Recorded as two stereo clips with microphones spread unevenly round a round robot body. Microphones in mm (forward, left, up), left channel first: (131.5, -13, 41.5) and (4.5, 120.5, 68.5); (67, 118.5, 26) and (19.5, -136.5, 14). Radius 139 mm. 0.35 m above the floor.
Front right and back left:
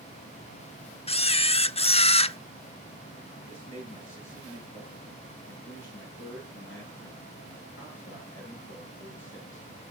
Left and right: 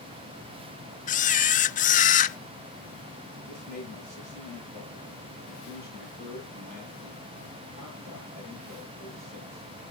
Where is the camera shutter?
15° left, 0.6 m.